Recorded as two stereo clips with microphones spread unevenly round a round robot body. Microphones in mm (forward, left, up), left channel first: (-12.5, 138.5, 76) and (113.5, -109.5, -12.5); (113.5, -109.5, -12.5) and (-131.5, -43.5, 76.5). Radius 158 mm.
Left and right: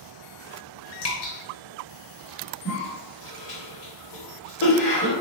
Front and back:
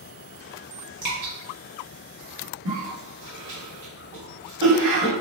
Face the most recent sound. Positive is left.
turn(degrees=145)